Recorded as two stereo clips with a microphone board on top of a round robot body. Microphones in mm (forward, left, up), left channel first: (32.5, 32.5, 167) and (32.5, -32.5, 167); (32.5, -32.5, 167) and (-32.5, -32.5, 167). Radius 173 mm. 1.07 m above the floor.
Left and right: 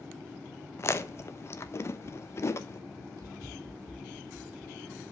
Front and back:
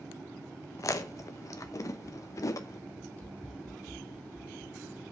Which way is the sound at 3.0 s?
70° right.